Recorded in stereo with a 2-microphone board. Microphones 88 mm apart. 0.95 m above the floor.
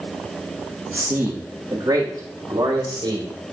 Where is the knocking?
I don't hear knocking.